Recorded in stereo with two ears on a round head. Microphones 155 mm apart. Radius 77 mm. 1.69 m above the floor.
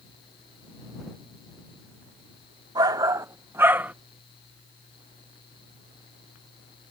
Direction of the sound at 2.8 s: 25° right (ahead or behind).